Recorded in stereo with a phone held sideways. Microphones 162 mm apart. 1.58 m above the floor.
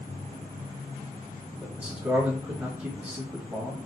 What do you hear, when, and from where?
1.6 s a man speaking: 15° right (ahead or behind), 1.2 m